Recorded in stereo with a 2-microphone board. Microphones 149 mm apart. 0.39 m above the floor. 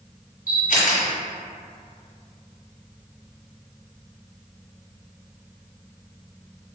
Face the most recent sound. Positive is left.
turn(degrees=80)